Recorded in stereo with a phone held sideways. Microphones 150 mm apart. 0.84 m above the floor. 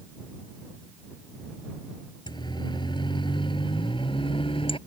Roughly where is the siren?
Left.